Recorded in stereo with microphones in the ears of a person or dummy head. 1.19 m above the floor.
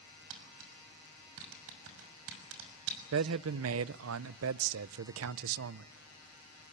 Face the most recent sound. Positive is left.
turn(degrees=-75)  # may be behind; listen again after turning